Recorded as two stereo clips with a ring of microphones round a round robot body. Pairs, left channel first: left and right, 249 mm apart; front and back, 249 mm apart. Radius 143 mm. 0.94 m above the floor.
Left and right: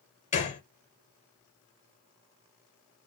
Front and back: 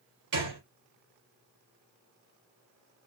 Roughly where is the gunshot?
Behind left.